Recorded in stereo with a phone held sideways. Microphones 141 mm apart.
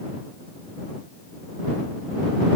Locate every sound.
Only background noise.